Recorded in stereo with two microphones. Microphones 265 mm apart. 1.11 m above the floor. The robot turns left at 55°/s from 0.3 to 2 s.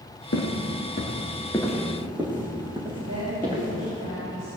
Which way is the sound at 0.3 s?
60° left (ahead or behind).